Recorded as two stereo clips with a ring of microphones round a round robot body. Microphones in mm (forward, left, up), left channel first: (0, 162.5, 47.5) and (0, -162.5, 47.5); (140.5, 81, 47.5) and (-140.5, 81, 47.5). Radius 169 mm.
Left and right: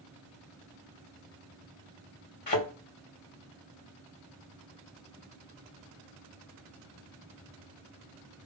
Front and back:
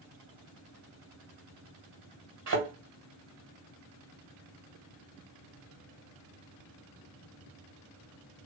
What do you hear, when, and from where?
2.5 s a thud: 150° left, 2 m